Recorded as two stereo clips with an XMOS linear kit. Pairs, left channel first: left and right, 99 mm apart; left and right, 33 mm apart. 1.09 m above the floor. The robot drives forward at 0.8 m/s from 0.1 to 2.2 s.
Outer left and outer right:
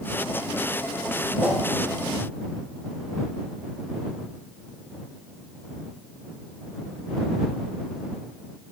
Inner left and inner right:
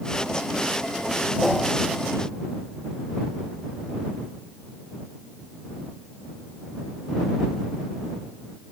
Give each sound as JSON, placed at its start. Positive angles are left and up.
{"t": 1.4, "sound": "a whoosh", "side_deg": -5, "distance_m": 1.2}